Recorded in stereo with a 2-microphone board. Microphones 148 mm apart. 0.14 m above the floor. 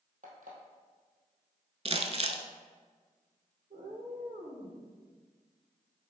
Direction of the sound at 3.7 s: 70° right (ahead or behind).